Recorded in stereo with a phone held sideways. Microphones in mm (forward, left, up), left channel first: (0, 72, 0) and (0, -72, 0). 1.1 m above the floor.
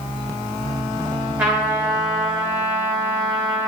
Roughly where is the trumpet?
Centre.